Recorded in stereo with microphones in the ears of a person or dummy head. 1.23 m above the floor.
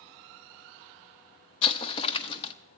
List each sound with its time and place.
1.6 s an explosion: 35° left (ahead or behind), 0.9 m